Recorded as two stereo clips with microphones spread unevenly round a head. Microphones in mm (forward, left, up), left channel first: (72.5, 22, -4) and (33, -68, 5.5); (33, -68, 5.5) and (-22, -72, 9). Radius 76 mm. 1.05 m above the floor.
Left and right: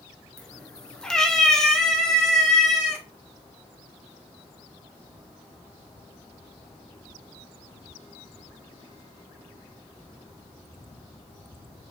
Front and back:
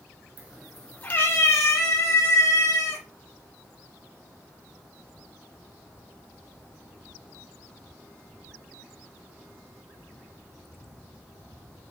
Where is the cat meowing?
155° left, 1.0 m; by 3.0 s 20° right, 3.5 m.